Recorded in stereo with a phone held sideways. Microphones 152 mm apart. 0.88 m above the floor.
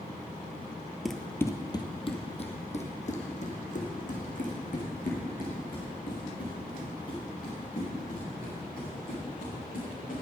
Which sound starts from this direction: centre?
Running footsteps, at 1.1 s.